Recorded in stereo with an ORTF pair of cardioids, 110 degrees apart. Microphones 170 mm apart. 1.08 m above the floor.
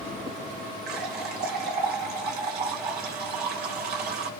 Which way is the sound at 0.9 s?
70° right.